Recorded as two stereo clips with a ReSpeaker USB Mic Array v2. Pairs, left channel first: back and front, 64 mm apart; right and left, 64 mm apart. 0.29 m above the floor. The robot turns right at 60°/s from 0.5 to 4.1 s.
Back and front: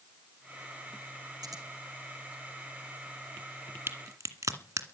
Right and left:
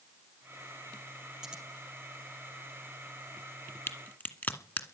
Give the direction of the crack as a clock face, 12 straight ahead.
1 o'clock.